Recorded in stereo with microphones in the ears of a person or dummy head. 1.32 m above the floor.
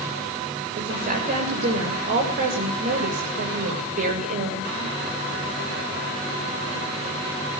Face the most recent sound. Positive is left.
turn(degrees=-50)  # may be behind; listen again after turning